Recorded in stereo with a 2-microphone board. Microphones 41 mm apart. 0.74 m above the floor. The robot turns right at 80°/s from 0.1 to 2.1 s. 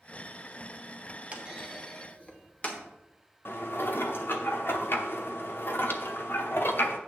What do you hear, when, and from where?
1.3 s a clunk: 35° right (ahead or behind), 1.2 m; by 2.8 s 30° left (ahead or behind), 1.2 m
3.5 s dishes clattering: 60° left (ahead or behind), 0.8 m